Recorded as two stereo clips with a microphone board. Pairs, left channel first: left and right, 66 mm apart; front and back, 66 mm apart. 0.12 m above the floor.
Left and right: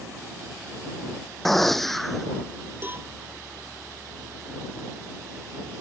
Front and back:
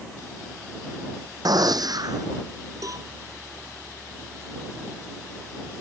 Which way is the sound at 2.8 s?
145° right.